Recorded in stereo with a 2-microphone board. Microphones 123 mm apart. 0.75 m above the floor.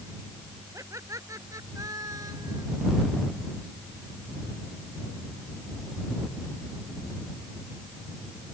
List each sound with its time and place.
0.7 s laughter: 25° right (ahead or behind); by 2.6 s 30° right (ahead or behind)